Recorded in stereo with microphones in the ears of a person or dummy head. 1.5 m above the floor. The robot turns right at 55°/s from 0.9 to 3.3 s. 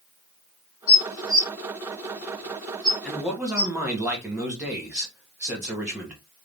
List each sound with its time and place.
0.9 s dishes clattering: 45° left (ahead or behind), 2 m; by 3.7 s centre (ahead or behind), 2 m
3.0 s a man speaking: centre (ahead or behind), 1.4 m; by 6.2 s 15° right (ahead or behind), 1.4 m